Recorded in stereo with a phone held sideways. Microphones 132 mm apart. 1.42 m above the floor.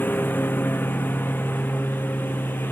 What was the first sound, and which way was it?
A lawn mower, 15° left (ahead or behind).